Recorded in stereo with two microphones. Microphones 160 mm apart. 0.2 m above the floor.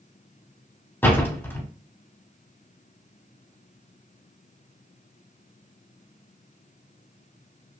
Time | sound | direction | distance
1.0 | a door slam | 15° left (ahead or behind) | 0.7 m